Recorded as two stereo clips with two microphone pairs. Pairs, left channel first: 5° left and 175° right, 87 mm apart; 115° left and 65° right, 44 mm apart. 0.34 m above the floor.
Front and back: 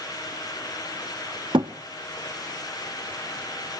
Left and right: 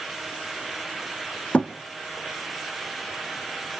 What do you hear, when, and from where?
1.5 s a thud: 170° left, 1.4 m